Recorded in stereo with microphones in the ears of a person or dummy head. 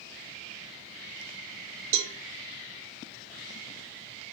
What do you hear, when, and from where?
1.9 s a cowbell: 70° right (ahead or behind), 0.7 m